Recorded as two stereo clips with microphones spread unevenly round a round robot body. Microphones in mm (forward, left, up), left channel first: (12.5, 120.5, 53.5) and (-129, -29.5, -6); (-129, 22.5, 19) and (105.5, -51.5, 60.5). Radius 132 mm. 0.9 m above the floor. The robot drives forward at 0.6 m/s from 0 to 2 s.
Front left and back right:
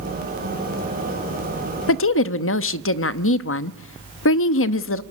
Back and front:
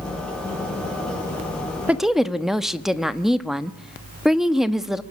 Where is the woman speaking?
70° left, 1.1 m; by 5.0 s 75° left, 1.0 m.